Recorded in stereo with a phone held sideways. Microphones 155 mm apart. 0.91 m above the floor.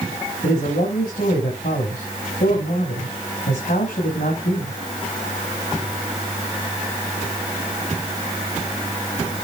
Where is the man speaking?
80° left, 5.5 m.